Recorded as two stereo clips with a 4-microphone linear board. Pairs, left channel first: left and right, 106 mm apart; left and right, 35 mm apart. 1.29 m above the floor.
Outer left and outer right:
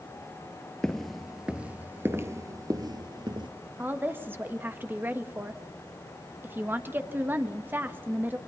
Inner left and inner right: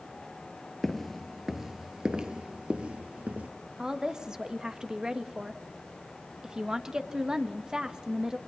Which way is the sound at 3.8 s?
20° right (ahead or behind).